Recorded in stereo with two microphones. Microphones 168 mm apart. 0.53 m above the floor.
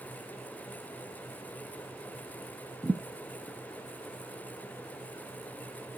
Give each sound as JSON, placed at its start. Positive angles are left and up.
{"t": 2.8, "sound": "a thud", "side_deg": -15, "distance_m": 1.3}